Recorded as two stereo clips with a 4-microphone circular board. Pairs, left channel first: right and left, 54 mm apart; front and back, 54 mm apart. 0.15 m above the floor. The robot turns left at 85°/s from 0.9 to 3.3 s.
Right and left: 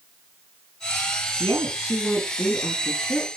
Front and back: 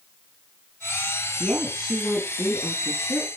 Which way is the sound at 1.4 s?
60° right.